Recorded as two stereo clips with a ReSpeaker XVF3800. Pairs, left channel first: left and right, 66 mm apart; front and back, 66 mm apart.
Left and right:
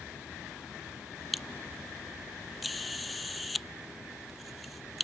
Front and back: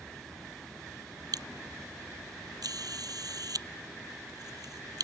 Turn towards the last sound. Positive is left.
turn(degrees=180)